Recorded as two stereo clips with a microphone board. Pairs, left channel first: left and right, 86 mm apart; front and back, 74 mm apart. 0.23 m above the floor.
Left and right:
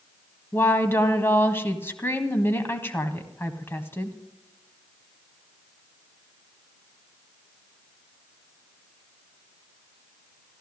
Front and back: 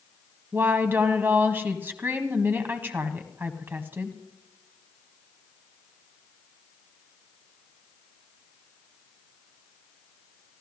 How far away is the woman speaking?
About 1.4 m.